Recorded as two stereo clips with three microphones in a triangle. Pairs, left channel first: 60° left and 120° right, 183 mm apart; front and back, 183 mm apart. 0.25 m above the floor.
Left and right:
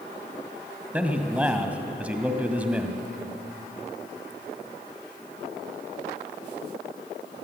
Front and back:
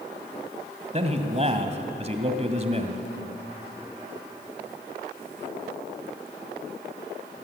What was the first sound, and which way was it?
A man speaking, 160° left.